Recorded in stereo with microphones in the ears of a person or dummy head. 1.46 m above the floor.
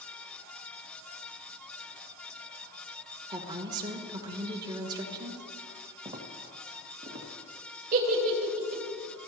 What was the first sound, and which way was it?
A woman speaking, 25° right (ahead or behind).